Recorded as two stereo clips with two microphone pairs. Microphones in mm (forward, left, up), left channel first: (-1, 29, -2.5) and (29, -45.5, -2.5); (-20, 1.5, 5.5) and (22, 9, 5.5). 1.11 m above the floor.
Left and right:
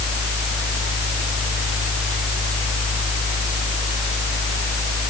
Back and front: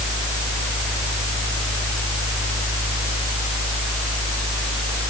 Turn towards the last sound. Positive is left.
No sound to turn to.